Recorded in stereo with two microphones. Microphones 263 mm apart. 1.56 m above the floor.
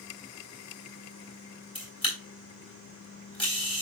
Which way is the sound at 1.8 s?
20° left (ahead or behind).